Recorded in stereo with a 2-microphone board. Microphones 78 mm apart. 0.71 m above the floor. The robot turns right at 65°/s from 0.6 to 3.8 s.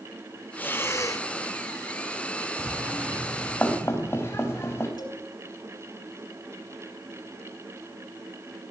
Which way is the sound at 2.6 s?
45° right (ahead or behind).